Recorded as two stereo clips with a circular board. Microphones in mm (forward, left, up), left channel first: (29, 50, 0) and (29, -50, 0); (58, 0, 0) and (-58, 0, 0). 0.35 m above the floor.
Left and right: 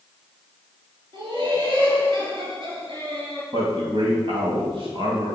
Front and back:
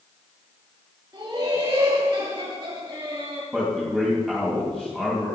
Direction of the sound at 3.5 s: 85° right.